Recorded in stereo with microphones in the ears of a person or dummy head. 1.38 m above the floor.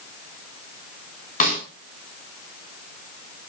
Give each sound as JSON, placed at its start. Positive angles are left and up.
{"t": 1.4, "sound": "a snare drum", "side_deg": 45, "distance_m": 7.5}